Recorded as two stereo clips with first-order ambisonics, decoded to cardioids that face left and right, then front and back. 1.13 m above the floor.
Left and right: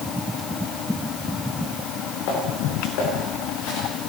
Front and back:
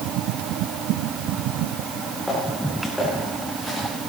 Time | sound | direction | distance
1.9 | footsteps | 80° left | 7 m